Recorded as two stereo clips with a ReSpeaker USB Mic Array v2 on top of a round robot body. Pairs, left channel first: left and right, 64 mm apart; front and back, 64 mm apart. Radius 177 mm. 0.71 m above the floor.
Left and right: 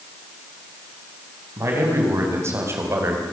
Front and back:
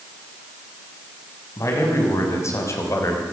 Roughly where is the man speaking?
Ahead right.